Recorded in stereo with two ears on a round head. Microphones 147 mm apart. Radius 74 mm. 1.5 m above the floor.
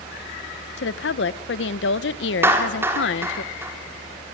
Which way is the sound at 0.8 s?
75° left (ahead or behind).